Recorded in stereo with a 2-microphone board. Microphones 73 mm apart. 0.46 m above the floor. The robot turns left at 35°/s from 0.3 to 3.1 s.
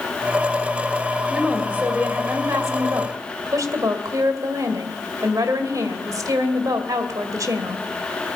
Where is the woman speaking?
10° right, 2 m; by 7.8 s 70° right, 2 m.